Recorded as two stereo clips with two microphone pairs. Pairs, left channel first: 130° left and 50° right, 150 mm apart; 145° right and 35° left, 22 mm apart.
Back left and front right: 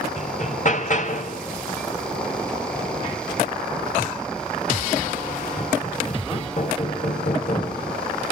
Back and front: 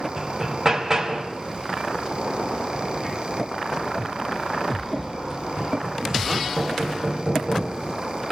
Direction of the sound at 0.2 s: 100° left.